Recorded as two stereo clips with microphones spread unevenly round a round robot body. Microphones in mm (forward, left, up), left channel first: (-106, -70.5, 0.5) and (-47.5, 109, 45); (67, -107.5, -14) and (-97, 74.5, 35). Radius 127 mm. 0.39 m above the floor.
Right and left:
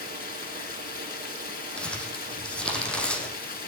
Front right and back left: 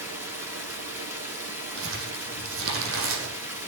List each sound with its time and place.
0.0 s running water: 145° right, 4 m
1.8 s crumpling: 165° left, 4.5 m